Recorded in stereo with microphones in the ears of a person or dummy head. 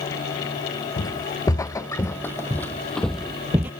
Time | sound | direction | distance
1.0 | footsteps | 15° left (ahead or behind) | ?